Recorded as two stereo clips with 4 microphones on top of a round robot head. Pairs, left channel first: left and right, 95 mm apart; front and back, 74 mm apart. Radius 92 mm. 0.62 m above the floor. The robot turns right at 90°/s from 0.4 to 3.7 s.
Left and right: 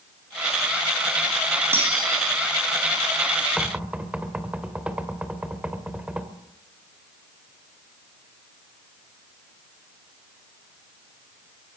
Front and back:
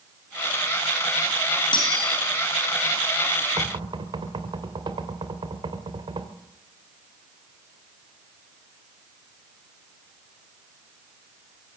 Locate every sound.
1.7 s cutlery clinking: 20° right, 4.5 m; by 2.2 s 20° left, 4.5 m
3.6 s knocking: straight behind, 2 m; by 6.3 s 170° right, 2 m